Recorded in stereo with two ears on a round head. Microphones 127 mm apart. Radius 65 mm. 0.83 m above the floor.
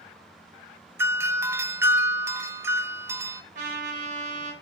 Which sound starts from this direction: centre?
A doorbell, at 1.0 s.